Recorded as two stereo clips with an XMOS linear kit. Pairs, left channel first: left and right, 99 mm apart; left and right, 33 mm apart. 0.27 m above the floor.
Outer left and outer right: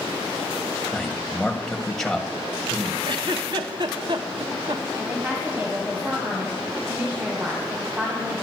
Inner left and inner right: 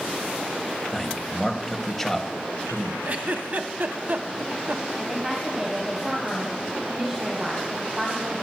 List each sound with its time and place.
0.9 s a man speaking: 5° left (ahead or behind), 1.5 m
3.0 s a giggle: 50° right (ahead or behind), 1.0 m
5.0 s a woman speaking: 20° right (ahead or behind), 2.0 m